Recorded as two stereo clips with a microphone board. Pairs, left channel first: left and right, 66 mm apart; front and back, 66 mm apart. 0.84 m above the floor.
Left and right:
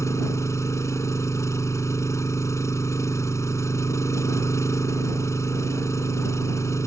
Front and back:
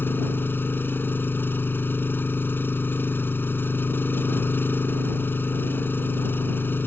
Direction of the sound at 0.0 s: 55° left.